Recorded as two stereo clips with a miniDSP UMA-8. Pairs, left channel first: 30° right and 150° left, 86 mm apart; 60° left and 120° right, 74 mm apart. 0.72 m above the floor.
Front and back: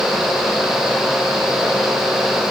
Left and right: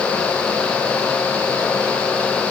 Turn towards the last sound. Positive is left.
No sound to turn to.